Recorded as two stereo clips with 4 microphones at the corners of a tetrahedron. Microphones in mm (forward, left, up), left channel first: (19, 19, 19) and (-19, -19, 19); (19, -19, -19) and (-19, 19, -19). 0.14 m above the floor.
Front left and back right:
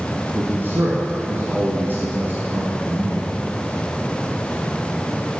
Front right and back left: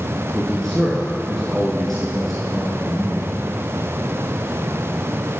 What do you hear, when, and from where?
0.3 s a man speaking: 125° right, 1.4 m